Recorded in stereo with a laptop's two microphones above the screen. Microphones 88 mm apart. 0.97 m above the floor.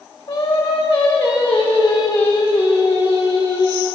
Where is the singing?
70° left (ahead or behind), 1.2 m.